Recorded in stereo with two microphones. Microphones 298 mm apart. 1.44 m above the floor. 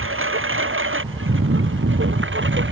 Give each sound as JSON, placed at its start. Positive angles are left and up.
{"t": 0.0, "sound": "a lawn mower", "side_deg": -45}